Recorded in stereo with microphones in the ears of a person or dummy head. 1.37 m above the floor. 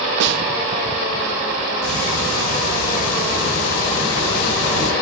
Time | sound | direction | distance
0.2 | a snare drum | 65° right (ahead or behind) | 0.7 m
1.8 | ticking | 85° left | 6.5 m